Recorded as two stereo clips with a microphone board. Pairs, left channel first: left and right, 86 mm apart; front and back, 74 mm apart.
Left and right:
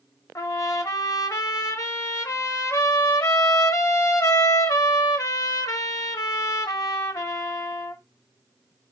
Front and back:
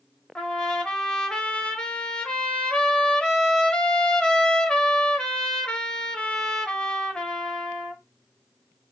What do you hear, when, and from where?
0.3 s a trumpet: 70° left, 0.9 m